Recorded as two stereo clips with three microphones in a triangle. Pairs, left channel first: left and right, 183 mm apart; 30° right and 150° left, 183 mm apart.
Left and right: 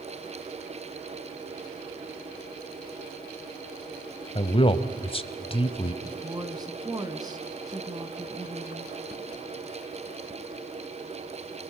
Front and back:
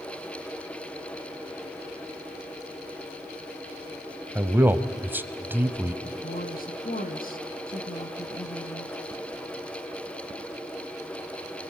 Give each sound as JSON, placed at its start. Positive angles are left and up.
{"t": 4.3, "sound": "a man speaking", "azimuth_deg": 80, "distance_m": 1.1}
{"t": 6.0, "sound": "a woman speaking", "azimuth_deg": -25, "distance_m": 2.0}